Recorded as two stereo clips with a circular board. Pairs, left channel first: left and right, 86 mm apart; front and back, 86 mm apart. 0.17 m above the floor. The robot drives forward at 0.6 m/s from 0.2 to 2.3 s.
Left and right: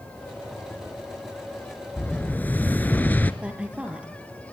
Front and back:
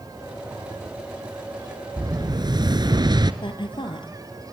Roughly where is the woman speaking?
Ahead.